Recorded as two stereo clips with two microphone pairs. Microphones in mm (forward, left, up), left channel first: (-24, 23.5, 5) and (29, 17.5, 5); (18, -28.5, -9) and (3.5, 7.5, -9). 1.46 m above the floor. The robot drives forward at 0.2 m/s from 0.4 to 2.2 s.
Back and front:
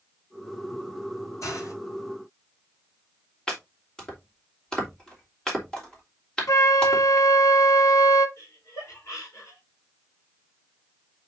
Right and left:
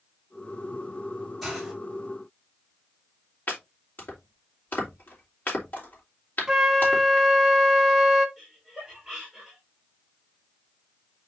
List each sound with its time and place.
1.4 s a hiss: 160° right, 4.5 m
3.5 s chopping: 110° right, 3 m
6.5 s a flute: 170° right, 1.0 m
8.4 s laughter: 160° right, 4.5 m